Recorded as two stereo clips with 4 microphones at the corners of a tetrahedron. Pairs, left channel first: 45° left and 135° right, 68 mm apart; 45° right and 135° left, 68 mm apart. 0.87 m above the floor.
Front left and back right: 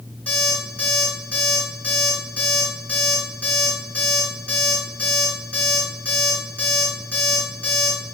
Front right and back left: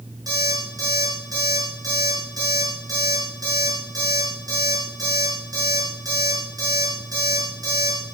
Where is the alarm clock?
115° left, 7.5 m.